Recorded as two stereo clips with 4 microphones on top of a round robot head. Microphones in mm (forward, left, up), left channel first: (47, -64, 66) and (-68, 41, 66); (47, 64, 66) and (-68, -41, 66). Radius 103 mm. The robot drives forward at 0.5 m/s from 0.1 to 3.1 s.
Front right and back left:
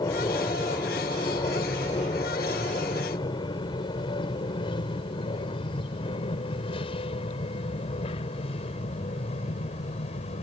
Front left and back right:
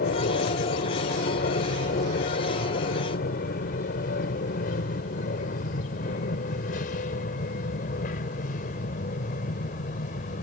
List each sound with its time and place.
0.0 s an aircraft: 25° left; by 10.4 s 5° left